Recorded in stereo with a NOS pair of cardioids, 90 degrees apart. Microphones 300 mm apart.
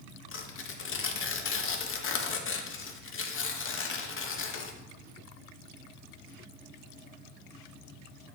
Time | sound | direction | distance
0.3 | tearing paper | 45° left | 0.9 m